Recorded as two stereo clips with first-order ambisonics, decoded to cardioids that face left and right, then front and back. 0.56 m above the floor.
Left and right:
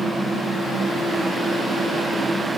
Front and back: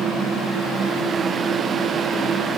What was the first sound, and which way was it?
Only background noise.